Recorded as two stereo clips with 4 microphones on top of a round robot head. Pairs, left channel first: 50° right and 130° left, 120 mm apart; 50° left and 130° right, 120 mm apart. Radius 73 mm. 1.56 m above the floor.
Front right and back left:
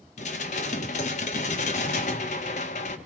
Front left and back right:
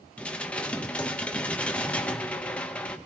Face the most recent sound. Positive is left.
turn(degrees=-30)